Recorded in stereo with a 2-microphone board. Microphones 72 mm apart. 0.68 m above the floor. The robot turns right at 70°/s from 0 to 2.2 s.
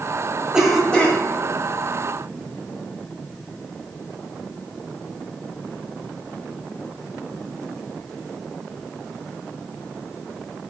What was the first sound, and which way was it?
A cough, 15° right.